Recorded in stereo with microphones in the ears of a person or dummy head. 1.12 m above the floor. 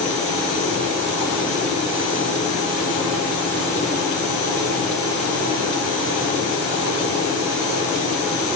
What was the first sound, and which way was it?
Only background noise.